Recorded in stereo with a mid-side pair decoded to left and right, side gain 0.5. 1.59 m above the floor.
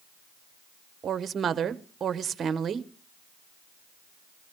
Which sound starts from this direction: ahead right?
A woman speaking, at 1.0 s.